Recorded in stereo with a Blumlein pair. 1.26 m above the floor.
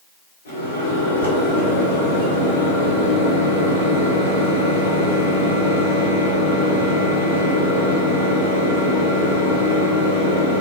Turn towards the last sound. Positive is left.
turn(degrees=70)